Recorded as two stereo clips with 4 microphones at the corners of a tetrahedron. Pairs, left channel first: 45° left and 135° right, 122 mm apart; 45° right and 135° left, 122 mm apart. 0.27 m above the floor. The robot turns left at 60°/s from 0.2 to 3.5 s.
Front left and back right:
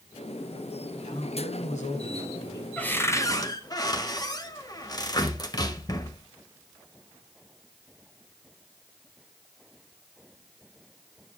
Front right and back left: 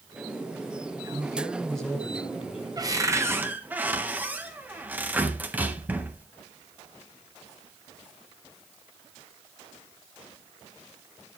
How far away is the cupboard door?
About 1.3 m.